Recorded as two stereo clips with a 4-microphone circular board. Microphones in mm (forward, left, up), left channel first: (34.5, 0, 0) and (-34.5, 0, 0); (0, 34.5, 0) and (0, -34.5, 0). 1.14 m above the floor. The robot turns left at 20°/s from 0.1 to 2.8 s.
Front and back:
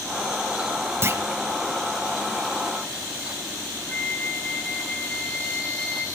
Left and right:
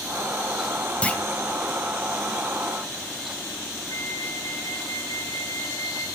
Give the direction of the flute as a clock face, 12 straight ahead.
10 o'clock.